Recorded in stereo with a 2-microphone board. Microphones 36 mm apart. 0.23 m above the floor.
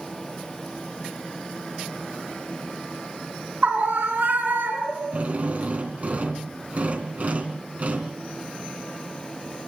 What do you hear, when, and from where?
3.6 s a scream: 55° right (ahead or behind), 3 m; by 5.2 s 70° right (ahead or behind), 4 m
5.1 s a drill: 45° right (ahead or behind), 3 m